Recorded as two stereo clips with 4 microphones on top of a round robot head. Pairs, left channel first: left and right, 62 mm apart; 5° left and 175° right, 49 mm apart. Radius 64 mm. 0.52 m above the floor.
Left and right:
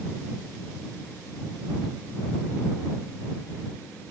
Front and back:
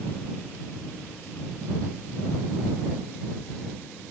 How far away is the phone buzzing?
No phone buzzing in this recording.